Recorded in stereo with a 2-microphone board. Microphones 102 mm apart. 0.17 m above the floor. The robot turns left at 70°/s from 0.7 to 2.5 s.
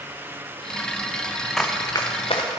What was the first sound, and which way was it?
Running footsteps, 5° left (ahead or behind).